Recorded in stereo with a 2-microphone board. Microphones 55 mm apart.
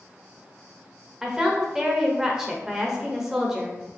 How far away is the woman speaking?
About 0.8 m.